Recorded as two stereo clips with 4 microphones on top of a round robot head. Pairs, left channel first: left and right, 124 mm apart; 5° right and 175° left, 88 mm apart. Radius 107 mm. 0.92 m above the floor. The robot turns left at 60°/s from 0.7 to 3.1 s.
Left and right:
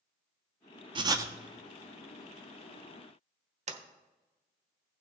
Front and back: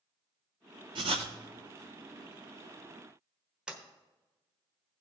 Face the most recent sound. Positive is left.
turn(degrees=-105)